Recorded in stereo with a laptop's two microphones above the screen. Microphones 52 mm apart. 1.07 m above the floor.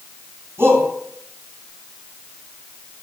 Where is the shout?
55° right (ahead or behind), 9 m.